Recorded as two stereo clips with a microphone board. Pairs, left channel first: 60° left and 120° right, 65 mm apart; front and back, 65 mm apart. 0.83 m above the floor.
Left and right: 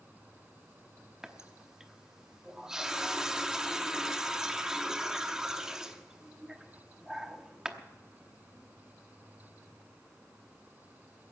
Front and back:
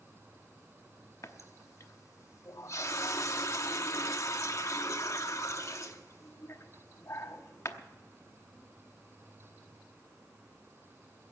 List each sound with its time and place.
1.2 s a running tap: 40° right, 0.9 m